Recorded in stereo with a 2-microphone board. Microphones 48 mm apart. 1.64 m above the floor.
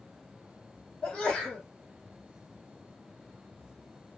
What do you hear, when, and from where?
1.0 s a sneeze: 10° left (ahead or behind), 2 m